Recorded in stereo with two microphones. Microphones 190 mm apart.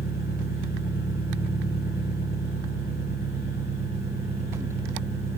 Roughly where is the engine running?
Left.